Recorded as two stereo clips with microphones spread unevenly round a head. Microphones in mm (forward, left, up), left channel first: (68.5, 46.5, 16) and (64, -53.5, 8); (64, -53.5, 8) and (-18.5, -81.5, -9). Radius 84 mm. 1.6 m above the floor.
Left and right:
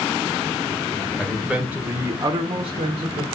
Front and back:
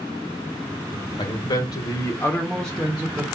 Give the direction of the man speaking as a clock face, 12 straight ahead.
12 o'clock.